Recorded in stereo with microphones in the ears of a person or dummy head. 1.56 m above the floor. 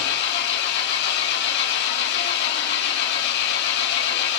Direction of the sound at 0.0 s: 65° left (ahead or behind).